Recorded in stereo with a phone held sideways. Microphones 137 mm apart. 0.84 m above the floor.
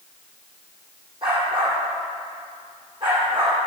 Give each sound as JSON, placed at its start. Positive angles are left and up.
{"t": 1.2, "sound": "a dog barking", "side_deg": -40, "distance_m": 9.5}